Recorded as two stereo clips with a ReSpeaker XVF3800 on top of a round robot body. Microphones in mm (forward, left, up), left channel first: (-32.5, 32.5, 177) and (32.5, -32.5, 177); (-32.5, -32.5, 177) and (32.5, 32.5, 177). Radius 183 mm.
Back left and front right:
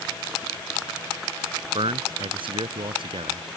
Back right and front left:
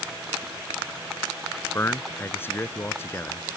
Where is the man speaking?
70° right.